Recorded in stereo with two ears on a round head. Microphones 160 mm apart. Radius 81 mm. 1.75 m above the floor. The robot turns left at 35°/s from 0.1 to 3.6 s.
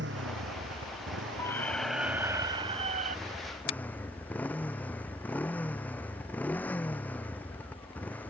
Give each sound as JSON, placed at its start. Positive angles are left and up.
{"t": 0.0, "sound": "a motorcycle", "azimuth_deg": -65}
{"t": 1.4, "sound": "a squeak", "azimuth_deg": 15}
{"t": 3.7, "sound": "a finger snap", "side_deg": 50}